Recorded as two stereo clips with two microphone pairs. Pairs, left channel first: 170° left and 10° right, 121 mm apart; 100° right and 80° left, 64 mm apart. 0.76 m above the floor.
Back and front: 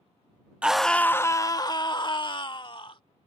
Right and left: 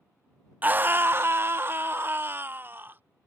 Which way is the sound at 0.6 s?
65° left.